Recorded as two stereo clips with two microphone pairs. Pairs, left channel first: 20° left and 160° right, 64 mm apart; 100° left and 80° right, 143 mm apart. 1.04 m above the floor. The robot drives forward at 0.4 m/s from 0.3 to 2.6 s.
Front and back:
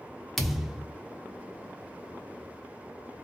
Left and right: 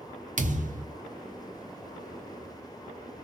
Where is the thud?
65° right, 0.7 m; by 0.9 s 85° right, 0.7 m.